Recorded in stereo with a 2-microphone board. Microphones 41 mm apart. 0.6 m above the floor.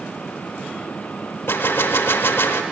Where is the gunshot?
70° left (ahead or behind), 0.6 m.